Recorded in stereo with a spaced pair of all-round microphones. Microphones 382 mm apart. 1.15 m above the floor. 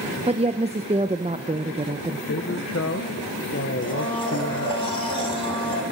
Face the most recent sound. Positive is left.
turn(degrees=-60)  # may be behind; listen again after turning